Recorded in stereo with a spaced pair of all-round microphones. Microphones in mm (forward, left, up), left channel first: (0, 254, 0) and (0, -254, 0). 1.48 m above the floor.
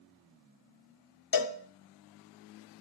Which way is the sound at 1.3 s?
45° left (ahead or behind).